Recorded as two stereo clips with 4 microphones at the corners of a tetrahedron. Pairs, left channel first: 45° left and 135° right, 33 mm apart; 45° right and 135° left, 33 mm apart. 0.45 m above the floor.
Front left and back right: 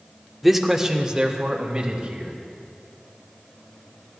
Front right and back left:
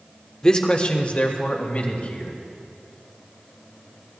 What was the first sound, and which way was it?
A man speaking, 50° right.